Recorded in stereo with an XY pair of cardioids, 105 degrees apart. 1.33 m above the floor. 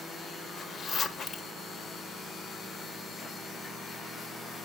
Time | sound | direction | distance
0.6 | a zipper | 55° left | 0.9 m